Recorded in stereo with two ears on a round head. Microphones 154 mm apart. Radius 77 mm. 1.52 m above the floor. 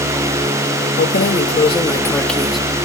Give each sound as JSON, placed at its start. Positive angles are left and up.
{"t": 1.0, "sound": "keys jangling", "side_deg": 60}